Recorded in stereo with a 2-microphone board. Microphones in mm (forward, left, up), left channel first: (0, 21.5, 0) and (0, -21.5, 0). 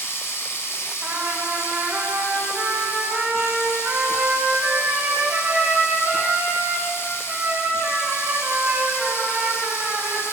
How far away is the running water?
About 2 m.